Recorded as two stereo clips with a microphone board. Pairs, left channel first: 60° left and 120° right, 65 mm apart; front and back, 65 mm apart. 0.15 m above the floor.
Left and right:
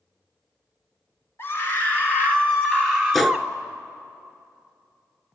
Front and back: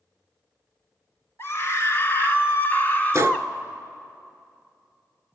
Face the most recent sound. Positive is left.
turn(degrees=145)